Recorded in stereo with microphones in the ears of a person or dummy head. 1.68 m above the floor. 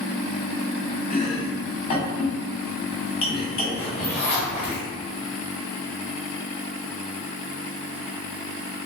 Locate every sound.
1.1 s chopping: 30° left (ahead or behind), 1.2 m
3.8 s a zipper: 10° left (ahead or behind), 1.5 m